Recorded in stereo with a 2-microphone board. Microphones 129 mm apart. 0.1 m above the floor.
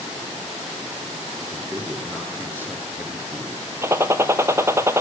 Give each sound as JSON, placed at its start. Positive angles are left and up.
{"t": 1.5, "sound": "a man speaking", "side_deg": -15, "distance_m": 1.8}
{"t": 3.8, "sound": "a gunshot", "side_deg": -20, "distance_m": 0.5}